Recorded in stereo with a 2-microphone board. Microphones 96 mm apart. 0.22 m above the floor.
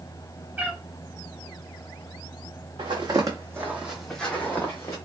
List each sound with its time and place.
0.6 s a cat meowing: 20° right (ahead or behind), 0.6 m
2.8 s footsteps: 55° right (ahead or behind), 1.0 m; by 5.0 s 30° left (ahead or behind), 1.1 m